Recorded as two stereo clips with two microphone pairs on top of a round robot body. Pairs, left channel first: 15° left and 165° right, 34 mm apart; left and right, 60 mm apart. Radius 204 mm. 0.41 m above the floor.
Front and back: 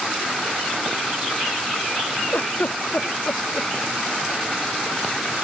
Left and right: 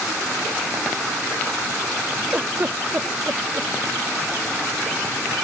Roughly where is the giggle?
Ahead right.